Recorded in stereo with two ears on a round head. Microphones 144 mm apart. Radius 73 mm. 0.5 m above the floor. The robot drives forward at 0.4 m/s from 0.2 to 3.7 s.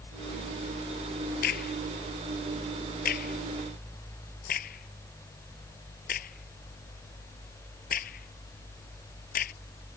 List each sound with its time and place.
1.4 s a crack: 65° left (ahead or behind); by 9.5 s 60° left (ahead or behind)